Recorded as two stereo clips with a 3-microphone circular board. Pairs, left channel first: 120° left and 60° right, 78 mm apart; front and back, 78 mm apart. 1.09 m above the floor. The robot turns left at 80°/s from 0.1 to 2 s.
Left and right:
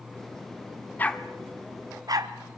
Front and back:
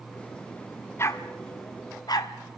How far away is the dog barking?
About 1.2 m.